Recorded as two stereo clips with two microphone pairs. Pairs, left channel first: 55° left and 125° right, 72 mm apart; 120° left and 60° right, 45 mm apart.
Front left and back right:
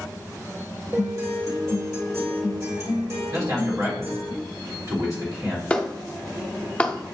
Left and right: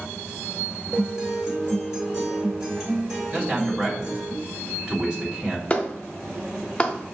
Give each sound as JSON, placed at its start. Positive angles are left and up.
{"t": 0.9, "sound": "a guitar", "azimuth_deg": -125, "distance_m": 1.9}
{"t": 3.3, "sound": "a man speaking", "azimuth_deg": -125, "distance_m": 1.8}
{"t": 5.7, "sound": "a clap", "azimuth_deg": 110, "distance_m": 0.6}